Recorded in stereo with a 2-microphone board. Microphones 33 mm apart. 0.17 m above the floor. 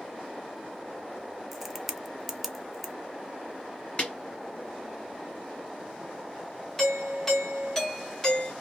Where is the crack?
5° right (ahead or behind), 0.5 m.